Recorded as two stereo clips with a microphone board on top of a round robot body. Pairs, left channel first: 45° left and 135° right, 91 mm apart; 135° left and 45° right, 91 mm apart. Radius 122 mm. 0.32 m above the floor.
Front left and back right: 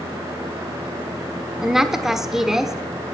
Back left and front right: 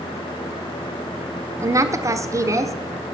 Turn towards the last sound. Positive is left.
turn(degrees=-55)